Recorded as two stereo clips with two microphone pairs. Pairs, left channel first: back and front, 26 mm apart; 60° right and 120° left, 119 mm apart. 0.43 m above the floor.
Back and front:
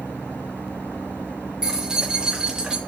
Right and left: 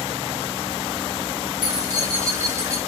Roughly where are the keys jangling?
Ahead left.